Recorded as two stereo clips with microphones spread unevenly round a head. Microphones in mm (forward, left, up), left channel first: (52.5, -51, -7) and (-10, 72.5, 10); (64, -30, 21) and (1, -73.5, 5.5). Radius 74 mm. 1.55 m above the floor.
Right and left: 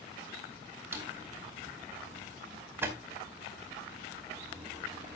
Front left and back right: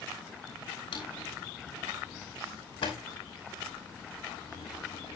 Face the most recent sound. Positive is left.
turn(degrees=45)